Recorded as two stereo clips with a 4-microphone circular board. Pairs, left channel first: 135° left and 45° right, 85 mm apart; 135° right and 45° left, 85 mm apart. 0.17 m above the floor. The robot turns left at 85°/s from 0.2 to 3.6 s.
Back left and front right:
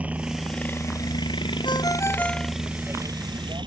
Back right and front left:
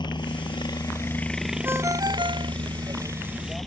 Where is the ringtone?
110° left; by 2.5 s 35° left.